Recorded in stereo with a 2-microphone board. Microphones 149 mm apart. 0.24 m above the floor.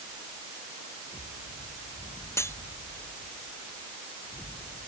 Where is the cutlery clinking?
20° left (ahead or behind).